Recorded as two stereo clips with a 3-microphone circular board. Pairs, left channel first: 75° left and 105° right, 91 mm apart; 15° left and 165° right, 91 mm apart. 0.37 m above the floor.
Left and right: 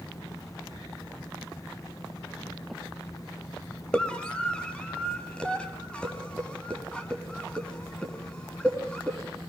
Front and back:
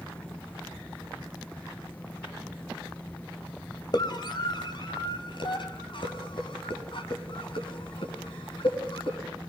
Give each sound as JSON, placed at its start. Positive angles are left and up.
{"t": 3.9, "sound": "a scream", "azimuth_deg": 0, "distance_m": 2.5}